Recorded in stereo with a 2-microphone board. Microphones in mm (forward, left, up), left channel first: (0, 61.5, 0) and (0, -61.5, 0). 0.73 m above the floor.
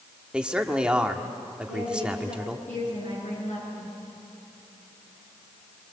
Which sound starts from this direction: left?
A woman speaking, at 1.7 s.